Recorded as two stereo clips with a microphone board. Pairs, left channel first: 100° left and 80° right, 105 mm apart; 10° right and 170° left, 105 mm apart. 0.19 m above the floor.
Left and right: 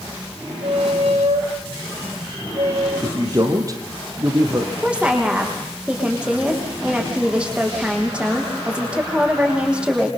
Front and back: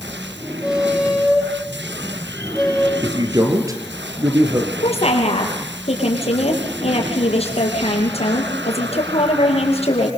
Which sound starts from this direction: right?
A squeak, at 0.6 s.